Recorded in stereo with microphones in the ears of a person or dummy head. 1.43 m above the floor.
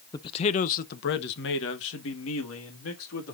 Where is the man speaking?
20° left (ahead or behind), 0.7 m; by 3.3 s 80° left, 2.5 m.